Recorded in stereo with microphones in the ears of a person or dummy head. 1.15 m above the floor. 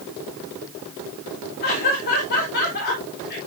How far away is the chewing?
No chewing in this recording.